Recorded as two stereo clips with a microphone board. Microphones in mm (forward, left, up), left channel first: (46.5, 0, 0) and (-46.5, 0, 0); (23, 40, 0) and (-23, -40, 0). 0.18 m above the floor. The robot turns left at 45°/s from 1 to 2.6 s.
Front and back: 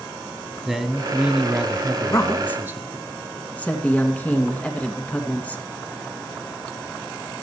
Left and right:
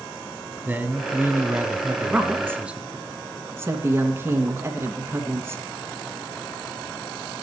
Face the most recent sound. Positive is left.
turn(degrees=-70)